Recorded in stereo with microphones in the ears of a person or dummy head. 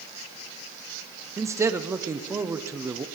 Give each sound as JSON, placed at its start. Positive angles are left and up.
{"t": 1.4, "sound": "a man speaking", "side_deg": -15, "distance_m": 0.8}